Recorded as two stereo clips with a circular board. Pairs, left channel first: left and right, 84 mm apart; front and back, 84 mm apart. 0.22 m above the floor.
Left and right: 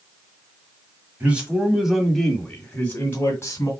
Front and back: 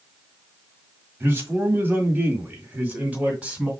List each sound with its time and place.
1.2 s a man speaking: 145° right, 1.6 m; by 3.7 s 110° left, 1.8 m